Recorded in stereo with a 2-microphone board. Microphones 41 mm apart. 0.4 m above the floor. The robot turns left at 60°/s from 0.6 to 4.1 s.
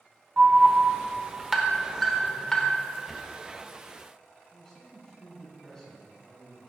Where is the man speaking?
15° left (ahead or behind), 3 m.